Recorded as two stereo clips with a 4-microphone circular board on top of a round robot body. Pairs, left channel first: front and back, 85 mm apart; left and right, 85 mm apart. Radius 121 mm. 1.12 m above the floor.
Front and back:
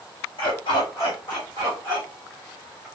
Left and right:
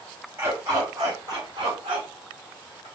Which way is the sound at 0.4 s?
30° right.